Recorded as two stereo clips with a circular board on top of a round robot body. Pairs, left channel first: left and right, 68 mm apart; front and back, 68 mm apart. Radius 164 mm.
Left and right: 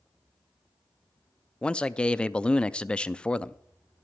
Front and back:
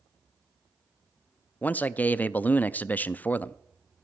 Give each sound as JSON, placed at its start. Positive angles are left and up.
{"t": 1.6, "sound": "a man speaking", "azimuth_deg": 30, "distance_m": 0.7}